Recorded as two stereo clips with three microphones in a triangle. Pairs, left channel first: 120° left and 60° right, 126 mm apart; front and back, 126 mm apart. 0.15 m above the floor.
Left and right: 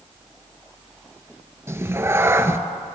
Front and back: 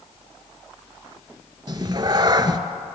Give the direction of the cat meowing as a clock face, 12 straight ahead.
4 o'clock.